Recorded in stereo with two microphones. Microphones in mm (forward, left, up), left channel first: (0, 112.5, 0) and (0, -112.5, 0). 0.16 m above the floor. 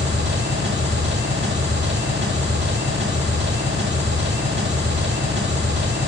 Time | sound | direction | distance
0.0 | an engine running | 50° right (ahead or behind) | 6.5 m